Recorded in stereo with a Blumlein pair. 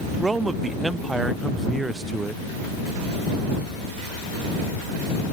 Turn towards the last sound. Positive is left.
turn(degrees=-10)